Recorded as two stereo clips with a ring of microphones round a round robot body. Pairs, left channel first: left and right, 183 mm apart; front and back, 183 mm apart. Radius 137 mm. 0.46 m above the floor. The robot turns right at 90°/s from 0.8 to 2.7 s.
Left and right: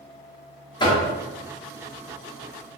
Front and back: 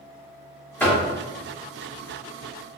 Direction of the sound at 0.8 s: 70° left.